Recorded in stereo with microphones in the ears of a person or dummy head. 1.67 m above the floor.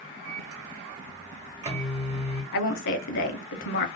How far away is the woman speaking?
About 0.6 m.